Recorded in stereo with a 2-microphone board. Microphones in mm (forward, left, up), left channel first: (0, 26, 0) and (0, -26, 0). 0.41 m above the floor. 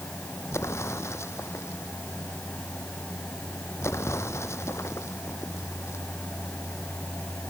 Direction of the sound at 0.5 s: 65° left (ahead or behind).